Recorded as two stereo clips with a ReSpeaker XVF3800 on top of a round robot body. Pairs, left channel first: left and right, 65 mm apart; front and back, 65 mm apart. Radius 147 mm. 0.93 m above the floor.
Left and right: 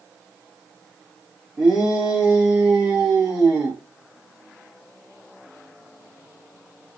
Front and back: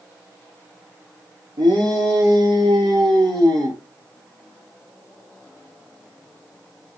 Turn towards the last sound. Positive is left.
turn(degrees=-165)